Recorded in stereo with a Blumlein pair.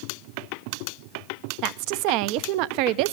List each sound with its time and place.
1.6 s a woman speaking: 45° right, 0.6 m